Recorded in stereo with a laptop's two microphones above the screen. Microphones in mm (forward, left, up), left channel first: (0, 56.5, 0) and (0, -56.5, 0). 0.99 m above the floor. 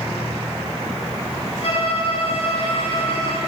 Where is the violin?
60° left (ahead or behind), 7 m.